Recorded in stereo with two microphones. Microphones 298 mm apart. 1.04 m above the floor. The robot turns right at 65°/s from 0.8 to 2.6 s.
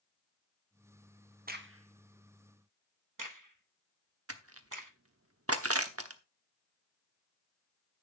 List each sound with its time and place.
1.5 s a crack: 25° right (ahead or behind), 1.1 m; by 4.9 s 75° right (ahead or behind), 1.1 m
4.3 s crushing: 50° right (ahead or behind), 1.0 m